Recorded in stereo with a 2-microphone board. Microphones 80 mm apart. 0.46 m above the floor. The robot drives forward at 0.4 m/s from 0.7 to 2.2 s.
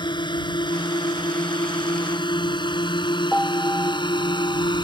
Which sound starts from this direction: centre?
A piano, at 3.3 s.